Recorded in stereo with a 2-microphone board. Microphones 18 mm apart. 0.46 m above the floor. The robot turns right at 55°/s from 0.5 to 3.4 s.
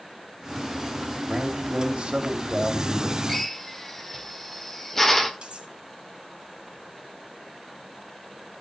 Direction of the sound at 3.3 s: 15° left (ahead or behind).